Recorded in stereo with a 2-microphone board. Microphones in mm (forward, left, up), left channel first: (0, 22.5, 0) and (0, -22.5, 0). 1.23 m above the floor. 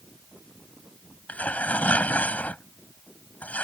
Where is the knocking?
I don't hear knocking.